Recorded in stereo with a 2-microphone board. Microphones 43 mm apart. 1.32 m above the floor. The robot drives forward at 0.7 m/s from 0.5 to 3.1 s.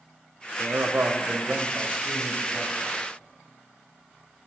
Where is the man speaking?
85° right, 0.6 m; by 3.0 s 20° right (ahead or behind), 1.8 m.